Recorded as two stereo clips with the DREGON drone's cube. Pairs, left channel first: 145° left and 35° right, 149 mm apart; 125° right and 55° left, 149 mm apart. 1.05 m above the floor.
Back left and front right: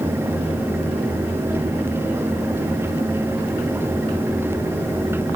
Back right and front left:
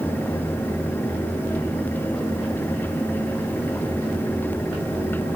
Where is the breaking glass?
I don't hear breaking glass.